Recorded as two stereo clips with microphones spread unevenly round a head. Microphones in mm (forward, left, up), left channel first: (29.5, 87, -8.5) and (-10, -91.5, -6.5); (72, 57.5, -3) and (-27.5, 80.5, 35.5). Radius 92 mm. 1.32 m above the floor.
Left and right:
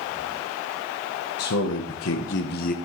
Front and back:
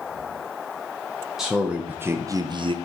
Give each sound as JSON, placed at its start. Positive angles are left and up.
{"t": 1.4, "sound": "a man speaking", "azimuth_deg": 80, "distance_m": 1.1}